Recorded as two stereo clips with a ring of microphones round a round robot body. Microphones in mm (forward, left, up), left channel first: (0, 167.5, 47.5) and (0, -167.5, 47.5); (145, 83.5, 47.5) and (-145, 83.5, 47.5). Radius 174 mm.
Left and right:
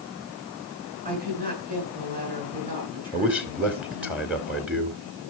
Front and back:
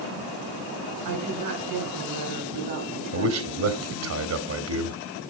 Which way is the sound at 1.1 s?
155° right.